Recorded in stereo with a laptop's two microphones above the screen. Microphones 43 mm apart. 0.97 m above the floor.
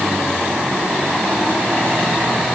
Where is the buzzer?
No buzzer in this recording.